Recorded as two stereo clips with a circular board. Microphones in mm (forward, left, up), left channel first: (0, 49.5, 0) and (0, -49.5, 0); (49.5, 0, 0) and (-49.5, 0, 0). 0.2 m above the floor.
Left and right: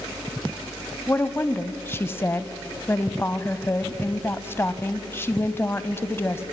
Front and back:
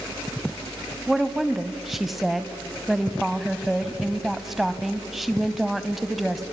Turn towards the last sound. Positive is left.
turn(degrees=95)